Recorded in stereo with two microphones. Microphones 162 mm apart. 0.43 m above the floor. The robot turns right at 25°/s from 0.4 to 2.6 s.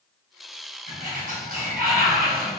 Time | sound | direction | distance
0.9 | a sliding door | 120° right | 3 m